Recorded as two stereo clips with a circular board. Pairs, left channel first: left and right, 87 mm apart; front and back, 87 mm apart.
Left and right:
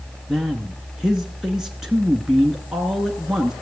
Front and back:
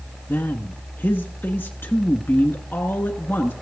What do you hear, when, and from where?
0.3 s a man speaking: 10° right, 1.1 m